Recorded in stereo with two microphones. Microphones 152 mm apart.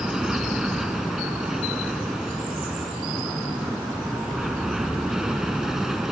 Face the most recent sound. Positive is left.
turn(degrees=0)  # may be behind; listen again after turning